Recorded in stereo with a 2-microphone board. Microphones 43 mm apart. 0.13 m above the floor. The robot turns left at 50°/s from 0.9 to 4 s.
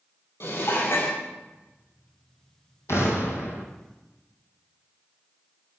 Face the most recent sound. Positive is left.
turn(degrees=45)